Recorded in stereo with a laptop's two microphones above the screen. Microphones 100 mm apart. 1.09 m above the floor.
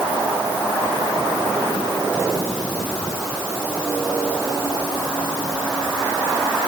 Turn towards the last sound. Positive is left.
No sound to turn to.